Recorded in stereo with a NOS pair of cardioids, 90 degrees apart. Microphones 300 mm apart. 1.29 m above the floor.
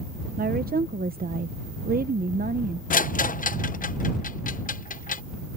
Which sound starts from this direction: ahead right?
A woman speaking, at 0.4 s.